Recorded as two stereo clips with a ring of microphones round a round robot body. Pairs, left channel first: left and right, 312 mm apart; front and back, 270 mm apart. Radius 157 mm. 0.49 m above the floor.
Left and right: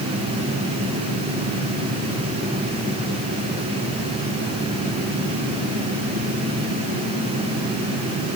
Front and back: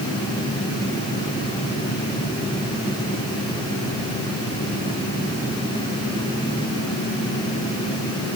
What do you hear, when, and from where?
Only background noise.